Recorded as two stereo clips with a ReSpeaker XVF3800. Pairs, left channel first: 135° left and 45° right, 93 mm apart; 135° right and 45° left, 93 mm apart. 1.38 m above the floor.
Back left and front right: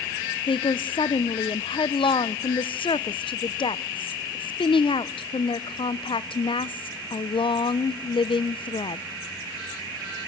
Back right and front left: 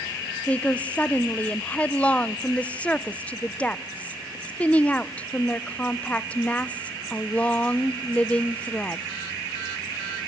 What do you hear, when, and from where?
0.5 s a woman speaking: 150° left, 0.6 m